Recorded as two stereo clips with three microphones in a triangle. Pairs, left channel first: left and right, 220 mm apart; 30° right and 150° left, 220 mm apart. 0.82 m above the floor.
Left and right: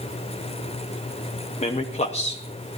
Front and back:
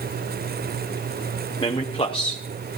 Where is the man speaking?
30° left, 0.8 m.